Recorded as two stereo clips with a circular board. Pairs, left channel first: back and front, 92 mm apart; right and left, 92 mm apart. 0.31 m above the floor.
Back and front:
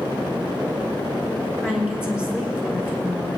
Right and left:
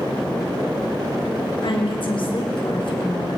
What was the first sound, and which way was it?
A woman speaking, 80° right.